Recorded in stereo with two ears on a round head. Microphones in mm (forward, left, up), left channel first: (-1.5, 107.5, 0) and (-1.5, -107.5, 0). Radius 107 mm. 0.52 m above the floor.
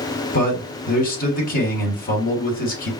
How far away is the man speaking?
About 1.4 m.